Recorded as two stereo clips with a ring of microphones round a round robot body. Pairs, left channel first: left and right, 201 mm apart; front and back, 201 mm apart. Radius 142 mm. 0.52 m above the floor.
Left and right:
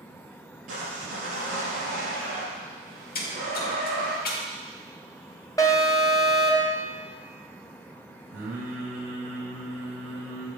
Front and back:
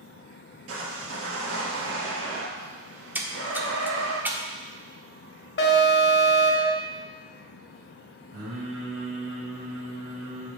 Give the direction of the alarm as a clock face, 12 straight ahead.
11 o'clock.